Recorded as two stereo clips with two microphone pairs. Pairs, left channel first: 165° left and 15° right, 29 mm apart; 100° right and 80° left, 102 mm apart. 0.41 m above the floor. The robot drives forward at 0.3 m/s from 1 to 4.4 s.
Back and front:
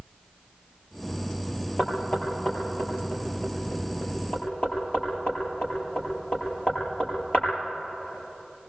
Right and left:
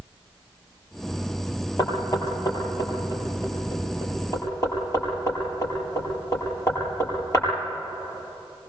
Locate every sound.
1.8 s knocking: 150° right, 7.5 m; by 7.5 s 155° right, 8.5 m